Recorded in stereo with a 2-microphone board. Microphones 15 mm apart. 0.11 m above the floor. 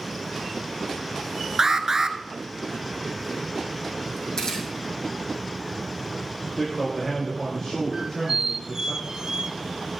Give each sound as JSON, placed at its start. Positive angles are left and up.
{"t": 1.6, "sound": "an alarm", "side_deg": -30, "distance_m": 0.9}
{"t": 4.4, "sound": "a camera shutter", "side_deg": 50, "distance_m": 4.5}
{"t": 6.5, "sound": "a man speaking", "side_deg": 15, "distance_m": 5.0}
{"t": 7.9, "sound": "a squeak", "side_deg": -50, "distance_m": 0.5}